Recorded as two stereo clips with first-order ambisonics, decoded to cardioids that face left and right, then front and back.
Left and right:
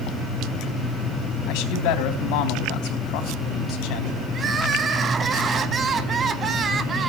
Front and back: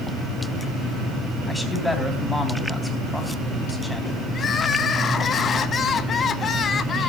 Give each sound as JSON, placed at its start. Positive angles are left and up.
{"t": 1.5, "sound": "a man speaking", "azimuth_deg": 90, "distance_m": 3.5}
{"t": 4.3, "sound": "crying", "azimuth_deg": -45, "distance_m": 0.8}